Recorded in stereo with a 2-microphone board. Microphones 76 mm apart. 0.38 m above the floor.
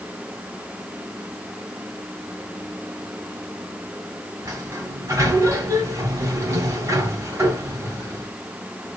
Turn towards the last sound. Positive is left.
turn(degrees=-40)  # may be behind; listen again after turning